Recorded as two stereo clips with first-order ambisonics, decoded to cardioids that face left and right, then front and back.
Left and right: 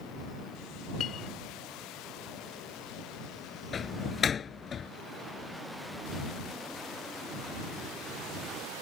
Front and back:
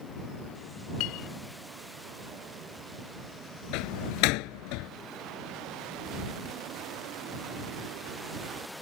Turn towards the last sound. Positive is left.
turn(degrees=20)